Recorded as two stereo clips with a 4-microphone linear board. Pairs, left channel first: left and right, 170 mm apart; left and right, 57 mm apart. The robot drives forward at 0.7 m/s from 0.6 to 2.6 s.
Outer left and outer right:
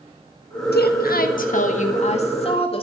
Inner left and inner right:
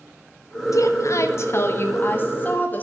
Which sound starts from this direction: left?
A woman speaking, at 0.7 s.